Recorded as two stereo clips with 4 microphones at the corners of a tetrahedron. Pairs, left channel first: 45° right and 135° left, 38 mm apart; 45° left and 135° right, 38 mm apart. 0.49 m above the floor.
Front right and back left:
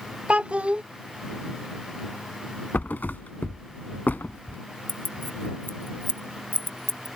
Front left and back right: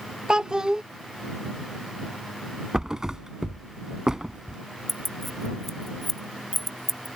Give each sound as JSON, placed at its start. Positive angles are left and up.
{"t": 0.3, "sound": "a child speaking", "azimuth_deg": 165}
{"t": 2.7, "sound": "a thud", "azimuth_deg": -60}
{"t": 4.9, "sound": "keys jangling", "azimuth_deg": -40}